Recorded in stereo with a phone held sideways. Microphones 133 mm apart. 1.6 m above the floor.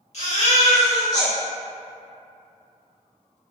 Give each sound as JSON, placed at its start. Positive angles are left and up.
{"t": 0.1, "sound": "a baby crying", "side_deg": 60, "distance_m": 1.4}